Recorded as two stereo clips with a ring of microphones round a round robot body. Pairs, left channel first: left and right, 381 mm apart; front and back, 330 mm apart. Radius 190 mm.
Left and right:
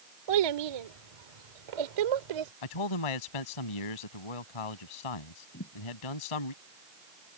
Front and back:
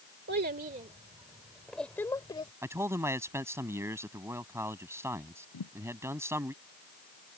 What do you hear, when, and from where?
0.3 s a child speaking: 115° right; by 2.5 s 75° right
2.6 s a man speaking: 100° left
5.5 s a thud: 30° left